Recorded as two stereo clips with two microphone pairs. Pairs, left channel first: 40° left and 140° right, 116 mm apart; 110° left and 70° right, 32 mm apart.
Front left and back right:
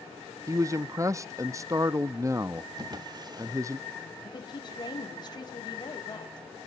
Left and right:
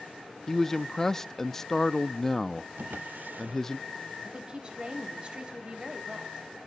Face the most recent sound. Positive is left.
turn(degrees=-10)